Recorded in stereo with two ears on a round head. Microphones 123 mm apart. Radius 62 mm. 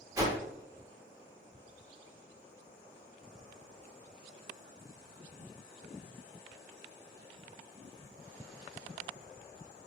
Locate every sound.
0.1 s a whoosh: 25° right (ahead or behind), 1.0 m